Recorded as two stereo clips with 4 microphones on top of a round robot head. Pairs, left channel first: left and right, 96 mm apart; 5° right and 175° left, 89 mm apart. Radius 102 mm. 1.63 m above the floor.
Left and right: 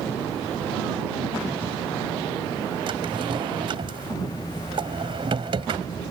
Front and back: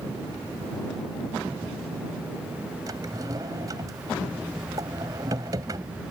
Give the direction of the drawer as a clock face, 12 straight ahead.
4 o'clock.